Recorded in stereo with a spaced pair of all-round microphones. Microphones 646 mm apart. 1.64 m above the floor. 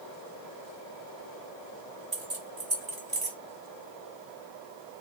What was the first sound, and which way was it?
Keys jangling, 60° right (ahead or behind).